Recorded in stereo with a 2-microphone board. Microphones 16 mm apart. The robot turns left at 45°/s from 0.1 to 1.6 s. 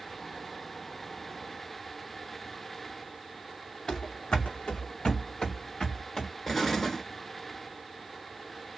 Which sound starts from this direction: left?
Running footsteps, at 3.9 s.